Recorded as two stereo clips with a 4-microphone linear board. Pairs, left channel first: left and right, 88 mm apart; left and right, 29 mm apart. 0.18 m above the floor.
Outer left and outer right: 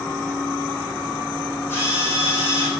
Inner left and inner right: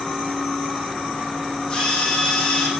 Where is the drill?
25° left (ahead or behind), 7 m.